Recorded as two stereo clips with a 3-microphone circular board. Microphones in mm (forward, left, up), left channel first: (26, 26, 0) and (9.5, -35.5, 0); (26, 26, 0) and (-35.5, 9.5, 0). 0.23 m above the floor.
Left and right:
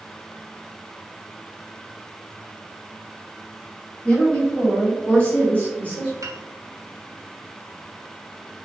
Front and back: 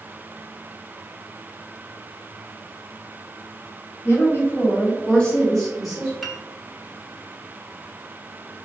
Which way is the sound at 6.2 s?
75° right.